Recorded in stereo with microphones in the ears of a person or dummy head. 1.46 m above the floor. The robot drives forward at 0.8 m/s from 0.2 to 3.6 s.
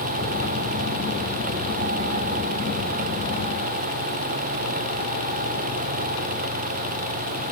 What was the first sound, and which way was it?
Only background noise.